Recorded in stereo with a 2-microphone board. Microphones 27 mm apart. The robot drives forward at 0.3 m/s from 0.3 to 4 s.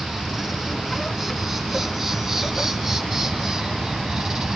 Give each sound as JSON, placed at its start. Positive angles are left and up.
{"t": 0.0, "sound": "an insect", "side_deg": -5, "distance_m": 2.5}